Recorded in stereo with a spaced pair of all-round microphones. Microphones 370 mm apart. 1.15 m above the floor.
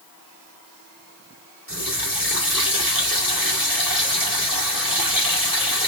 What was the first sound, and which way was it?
A running tap, 60° right (ahead or behind).